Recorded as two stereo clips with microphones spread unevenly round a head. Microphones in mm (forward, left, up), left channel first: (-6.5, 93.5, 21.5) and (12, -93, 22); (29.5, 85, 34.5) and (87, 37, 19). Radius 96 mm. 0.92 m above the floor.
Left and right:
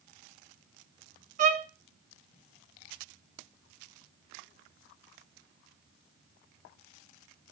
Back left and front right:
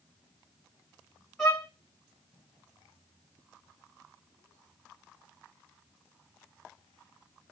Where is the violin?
135° right, 0.9 m.